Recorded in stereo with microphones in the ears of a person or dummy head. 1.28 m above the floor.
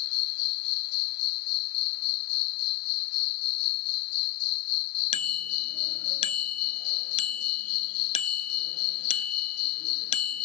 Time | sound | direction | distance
0.0 | an insect | 55° left (ahead or behind) | ?
5.1 | a bicycle bell | 35° left (ahead or behind) | ?